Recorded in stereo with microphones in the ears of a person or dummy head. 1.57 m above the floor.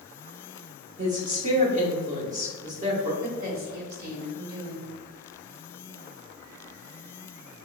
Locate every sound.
1.0 s a woman speaking: 35° right (ahead or behind), 1.2 m
3.2 s a woman speaking: 55° right (ahead or behind), 1.3 m